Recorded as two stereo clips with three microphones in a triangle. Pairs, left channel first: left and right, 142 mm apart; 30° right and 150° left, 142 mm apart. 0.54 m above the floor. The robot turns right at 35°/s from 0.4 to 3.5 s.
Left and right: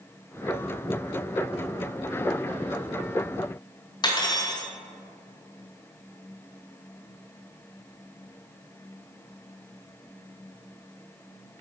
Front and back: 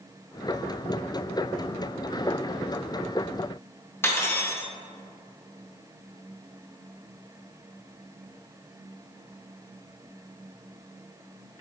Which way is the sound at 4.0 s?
40° left.